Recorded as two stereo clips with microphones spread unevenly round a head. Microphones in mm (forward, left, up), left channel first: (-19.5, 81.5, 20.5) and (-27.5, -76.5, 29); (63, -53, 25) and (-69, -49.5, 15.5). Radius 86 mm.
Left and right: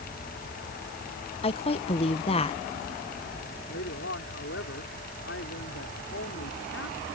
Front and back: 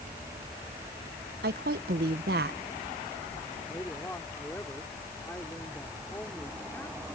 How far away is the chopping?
I don't hear chopping.